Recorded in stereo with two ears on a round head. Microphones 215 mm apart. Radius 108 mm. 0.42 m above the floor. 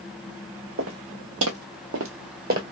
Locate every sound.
0.8 s footsteps: 55° right (ahead or behind), 1.3 m; by 2.6 s 35° right (ahead or behind), 0.8 m